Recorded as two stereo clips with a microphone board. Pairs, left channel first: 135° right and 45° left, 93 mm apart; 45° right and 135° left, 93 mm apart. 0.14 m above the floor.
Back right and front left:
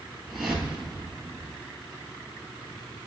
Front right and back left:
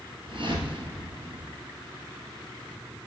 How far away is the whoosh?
About 1.7 m.